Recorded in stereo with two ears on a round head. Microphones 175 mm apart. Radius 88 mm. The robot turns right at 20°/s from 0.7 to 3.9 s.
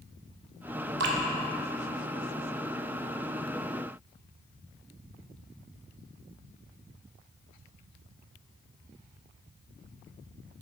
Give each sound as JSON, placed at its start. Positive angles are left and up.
{"t": 1.0, "sound": "dripping", "side_deg": -60, "distance_m": 0.8}